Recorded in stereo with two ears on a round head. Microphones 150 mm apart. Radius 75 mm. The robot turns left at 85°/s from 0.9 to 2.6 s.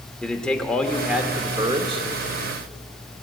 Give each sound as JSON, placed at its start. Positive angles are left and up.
{"t": 0.2, "sound": "a man speaking", "azimuth_deg": 10, "distance_m": 1.0}